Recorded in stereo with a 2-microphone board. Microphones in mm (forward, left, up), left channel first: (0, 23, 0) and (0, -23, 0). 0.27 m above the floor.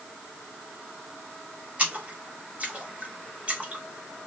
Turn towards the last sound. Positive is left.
turn(degrees=-25)  # may be behind; listen again after turning